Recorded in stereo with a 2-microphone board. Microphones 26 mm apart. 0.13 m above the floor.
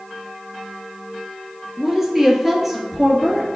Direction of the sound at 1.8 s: 20° right (ahead or behind).